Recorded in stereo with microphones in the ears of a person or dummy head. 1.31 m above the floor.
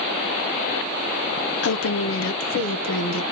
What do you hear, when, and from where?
1.6 s a woman speaking: 60° left (ahead or behind), 0.8 m